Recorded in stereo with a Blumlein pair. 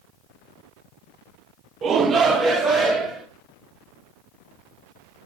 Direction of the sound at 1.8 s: 25° right.